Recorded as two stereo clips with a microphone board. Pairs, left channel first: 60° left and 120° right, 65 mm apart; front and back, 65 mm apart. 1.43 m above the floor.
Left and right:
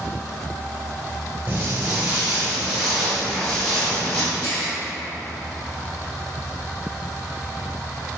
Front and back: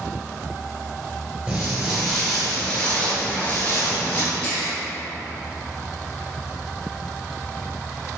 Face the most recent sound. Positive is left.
turn(degrees=70)